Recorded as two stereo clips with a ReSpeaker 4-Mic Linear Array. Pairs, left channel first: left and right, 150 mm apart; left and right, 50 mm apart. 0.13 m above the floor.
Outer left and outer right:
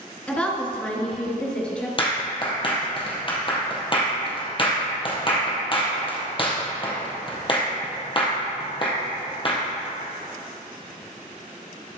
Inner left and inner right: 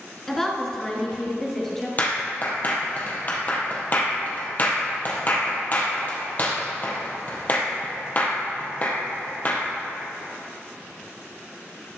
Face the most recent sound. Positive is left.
turn(degrees=35)  # may be behind; listen again after turning